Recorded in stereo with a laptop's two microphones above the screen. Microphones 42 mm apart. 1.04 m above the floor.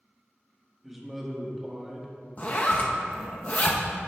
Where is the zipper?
40° left (ahead or behind), 0.8 m.